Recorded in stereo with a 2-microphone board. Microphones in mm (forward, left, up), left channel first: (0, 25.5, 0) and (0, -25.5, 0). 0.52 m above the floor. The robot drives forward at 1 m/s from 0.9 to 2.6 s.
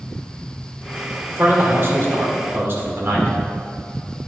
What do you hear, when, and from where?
1.3 s a man speaking: 40° right (ahead or behind), 1.8 m; by 3.4 s 45° right (ahead or behind), 1.7 m